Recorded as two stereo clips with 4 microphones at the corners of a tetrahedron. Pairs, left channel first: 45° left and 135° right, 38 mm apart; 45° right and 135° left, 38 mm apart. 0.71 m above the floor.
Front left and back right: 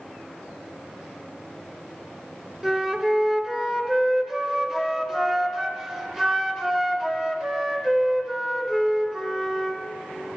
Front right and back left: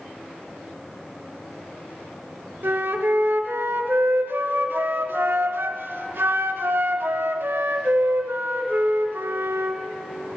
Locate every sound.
2.6 s a flute: 145° left, 0.9 m